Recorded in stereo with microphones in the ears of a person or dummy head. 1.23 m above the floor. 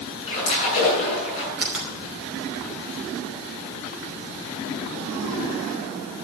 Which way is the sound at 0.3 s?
40° left (ahead or behind).